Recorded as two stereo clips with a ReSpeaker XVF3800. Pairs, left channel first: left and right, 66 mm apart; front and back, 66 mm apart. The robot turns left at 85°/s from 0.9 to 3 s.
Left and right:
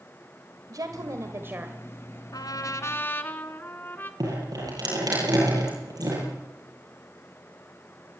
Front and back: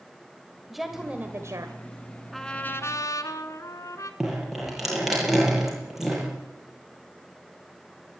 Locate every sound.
0.7 s a woman speaking: 90° right, 1.6 m; by 1.8 s 165° right, 1.6 m
2.3 s a trumpet: 90° left, 1.5 m; by 4.1 s 35° left, 1.5 m
4.2 s dripping: 95° right, 9 m